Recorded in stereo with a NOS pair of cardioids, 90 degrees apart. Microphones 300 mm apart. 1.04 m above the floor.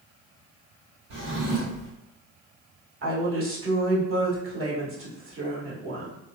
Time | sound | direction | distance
1.1 | a drawer | 65° right | 1.5 m
3.0 | a woman speaking | 45° right | 1.3 m